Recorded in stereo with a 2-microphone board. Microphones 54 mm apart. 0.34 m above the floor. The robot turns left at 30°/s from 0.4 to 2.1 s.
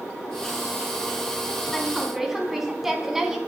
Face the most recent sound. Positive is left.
turn(degrees=-5)  # may be behind; listen again after turning